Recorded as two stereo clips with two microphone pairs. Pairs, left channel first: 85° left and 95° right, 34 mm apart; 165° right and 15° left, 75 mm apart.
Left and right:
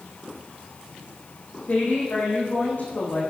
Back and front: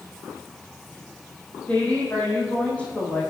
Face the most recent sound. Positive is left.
turn(degrees=120)